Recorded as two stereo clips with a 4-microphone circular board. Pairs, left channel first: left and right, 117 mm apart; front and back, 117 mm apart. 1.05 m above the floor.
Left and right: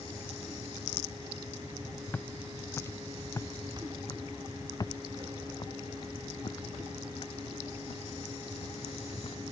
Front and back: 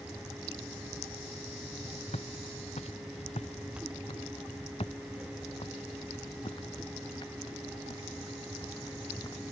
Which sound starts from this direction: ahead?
Footsteps, at 2.1 s.